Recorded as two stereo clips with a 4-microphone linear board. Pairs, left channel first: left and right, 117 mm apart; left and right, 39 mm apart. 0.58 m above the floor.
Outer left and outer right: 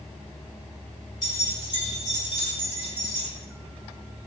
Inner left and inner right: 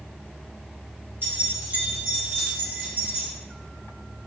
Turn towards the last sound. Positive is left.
turn(degrees=-45)  # may be behind; listen again after turning